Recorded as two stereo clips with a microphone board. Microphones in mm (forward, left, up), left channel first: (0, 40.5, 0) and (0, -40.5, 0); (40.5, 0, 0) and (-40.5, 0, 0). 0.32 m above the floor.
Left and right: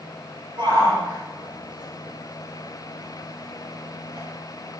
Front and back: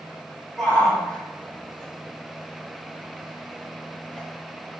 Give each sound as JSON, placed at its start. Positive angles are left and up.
{"t": 0.6, "sound": "a shout", "azimuth_deg": -75, "distance_m": 7.5}